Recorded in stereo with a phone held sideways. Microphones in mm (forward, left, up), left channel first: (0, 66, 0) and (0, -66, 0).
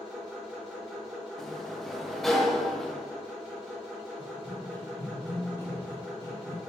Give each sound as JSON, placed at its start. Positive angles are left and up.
{"t": 0.0, "sound": "a machine running", "side_deg": 0, "distance_m": 2.0}
{"t": 1.4, "sound": "a sliding door", "side_deg": 0, "distance_m": 0.6}
{"t": 4.2, "sound": "running footsteps", "side_deg": 10, "distance_m": 1.7}